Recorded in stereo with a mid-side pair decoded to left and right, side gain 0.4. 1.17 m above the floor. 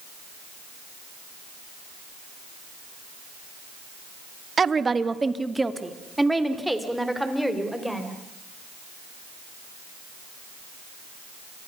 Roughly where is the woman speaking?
Ahead right.